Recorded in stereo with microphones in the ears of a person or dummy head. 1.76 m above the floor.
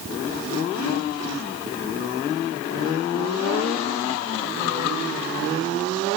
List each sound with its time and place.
Only background noise.